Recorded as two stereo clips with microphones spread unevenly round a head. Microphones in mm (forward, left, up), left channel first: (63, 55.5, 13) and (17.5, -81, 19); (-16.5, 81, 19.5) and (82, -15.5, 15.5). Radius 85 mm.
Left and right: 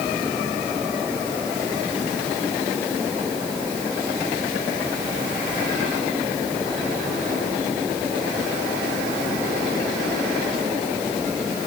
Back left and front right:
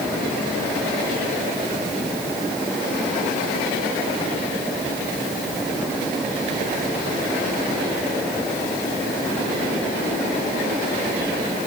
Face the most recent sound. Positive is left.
No sound to turn to.